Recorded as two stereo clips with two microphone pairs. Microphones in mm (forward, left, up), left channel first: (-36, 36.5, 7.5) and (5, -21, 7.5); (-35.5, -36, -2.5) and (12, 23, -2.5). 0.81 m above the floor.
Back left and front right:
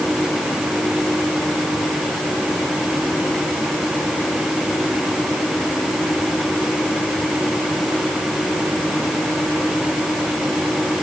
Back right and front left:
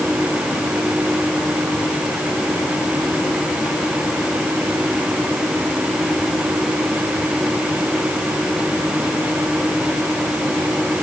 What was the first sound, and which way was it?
Only background noise.